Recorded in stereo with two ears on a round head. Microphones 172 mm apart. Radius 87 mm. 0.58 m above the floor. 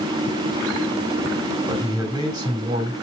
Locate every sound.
1.7 s a man speaking: 20° right (ahead or behind), 2 m